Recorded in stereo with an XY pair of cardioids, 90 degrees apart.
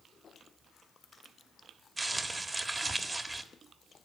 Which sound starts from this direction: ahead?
Crumpling, at 2.0 s.